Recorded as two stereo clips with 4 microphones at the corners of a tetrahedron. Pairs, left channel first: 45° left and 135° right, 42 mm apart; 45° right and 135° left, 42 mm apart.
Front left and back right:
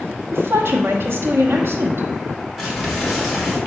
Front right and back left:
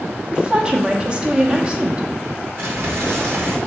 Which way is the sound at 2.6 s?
130° left.